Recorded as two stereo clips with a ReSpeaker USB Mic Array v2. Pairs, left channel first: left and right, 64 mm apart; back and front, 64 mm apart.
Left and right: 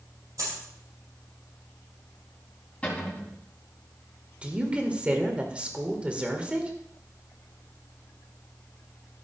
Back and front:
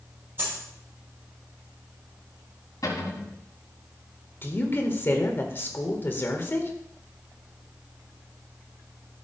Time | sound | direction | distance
0.4 | a dropped coin | 60° right | 6.5 m
2.8 | a cupboard door | 155° left | 3.5 m
4.4 | a woman speaking | 150° right | 1.8 m